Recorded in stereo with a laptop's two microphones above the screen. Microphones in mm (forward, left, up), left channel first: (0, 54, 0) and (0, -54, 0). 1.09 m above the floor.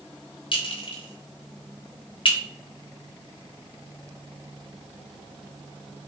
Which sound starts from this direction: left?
A clink, at 0.5 s.